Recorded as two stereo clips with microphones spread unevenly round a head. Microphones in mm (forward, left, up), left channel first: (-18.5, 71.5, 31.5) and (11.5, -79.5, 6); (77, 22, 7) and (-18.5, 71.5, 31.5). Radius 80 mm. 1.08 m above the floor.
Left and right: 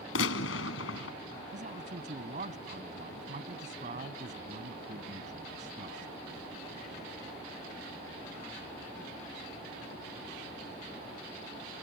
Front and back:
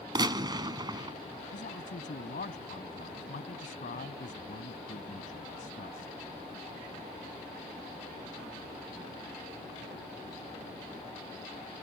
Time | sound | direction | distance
0.1 | a gunshot | 105° left | ?
1.5 | a man speaking | 30° right | ?